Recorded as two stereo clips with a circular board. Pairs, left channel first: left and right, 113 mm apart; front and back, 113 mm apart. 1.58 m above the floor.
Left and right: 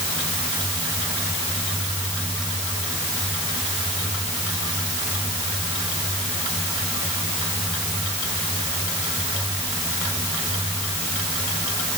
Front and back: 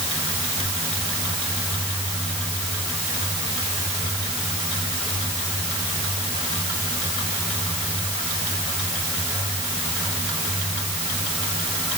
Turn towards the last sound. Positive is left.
No sound to turn to.